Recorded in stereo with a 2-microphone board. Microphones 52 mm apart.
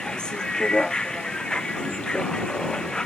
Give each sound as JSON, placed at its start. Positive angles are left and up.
{"t": 0.0, "sound": "a vehicle", "side_deg": 20}